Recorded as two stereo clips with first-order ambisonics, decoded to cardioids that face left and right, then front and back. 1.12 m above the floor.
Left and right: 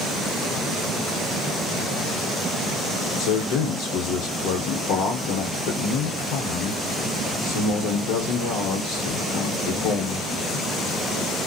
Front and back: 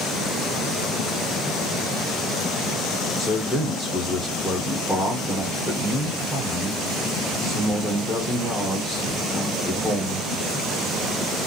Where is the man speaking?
80° left, 0.9 m.